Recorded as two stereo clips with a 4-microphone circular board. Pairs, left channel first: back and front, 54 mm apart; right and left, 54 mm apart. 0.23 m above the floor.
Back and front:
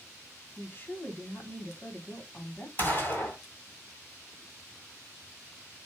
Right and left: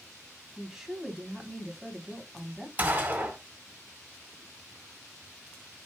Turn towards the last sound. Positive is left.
turn(degrees=140)